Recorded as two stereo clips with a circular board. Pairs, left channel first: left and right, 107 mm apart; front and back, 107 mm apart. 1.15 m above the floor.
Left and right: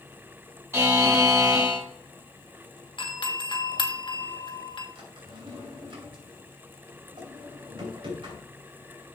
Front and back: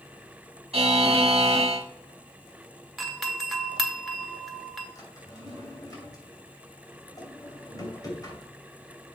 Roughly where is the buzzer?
Behind right.